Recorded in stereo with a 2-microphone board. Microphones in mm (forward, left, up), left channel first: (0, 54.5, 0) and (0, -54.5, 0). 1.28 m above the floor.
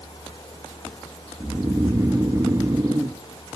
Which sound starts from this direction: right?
Snoring, at 1.4 s.